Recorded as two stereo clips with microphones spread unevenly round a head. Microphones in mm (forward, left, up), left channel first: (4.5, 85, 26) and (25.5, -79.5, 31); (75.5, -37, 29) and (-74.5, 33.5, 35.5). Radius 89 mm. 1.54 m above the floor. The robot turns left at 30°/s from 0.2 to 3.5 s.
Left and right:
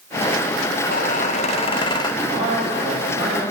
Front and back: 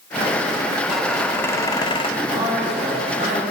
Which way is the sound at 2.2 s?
125° right.